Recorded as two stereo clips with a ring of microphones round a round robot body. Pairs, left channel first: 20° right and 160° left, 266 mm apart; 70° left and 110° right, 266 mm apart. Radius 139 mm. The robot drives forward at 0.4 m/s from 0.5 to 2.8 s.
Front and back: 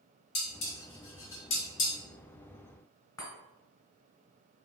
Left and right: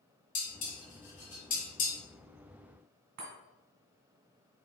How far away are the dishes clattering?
About 1.9 m.